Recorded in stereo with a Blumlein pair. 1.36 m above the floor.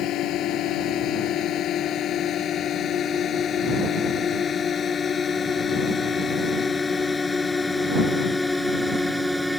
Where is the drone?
35° left; by 9.6 s straight ahead.